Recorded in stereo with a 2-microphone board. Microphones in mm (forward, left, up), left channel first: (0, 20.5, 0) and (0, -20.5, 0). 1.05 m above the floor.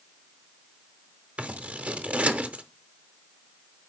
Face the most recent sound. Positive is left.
turn(degrees=-35)  # may be behind; listen again after turning